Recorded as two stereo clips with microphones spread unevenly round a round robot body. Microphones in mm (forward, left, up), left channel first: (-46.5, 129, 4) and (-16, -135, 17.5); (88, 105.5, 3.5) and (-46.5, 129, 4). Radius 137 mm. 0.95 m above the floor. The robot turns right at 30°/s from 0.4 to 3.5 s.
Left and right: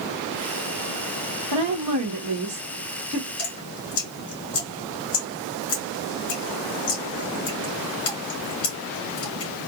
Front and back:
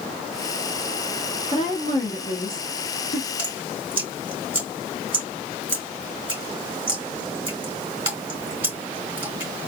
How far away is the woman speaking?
About 1.1 m.